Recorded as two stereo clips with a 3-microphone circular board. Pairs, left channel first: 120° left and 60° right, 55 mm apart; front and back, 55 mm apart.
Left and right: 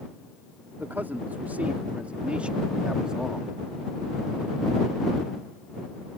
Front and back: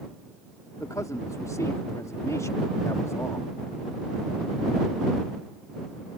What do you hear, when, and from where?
0.8 s a man speaking: 5° right; by 3.5 s 20° left